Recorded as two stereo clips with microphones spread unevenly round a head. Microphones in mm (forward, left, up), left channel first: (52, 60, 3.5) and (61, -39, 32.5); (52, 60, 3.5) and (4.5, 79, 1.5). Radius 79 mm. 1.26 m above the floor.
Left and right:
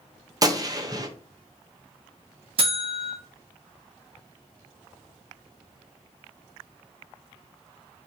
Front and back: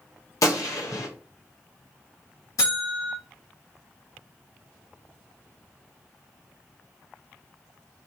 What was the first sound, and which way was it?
A gunshot, 35° right.